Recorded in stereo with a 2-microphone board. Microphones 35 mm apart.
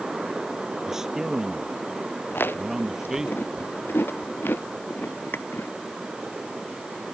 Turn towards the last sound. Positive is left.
turn(degrees=85)